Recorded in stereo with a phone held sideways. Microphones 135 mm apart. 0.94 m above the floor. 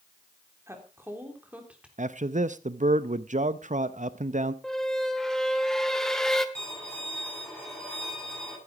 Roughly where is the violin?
Centre.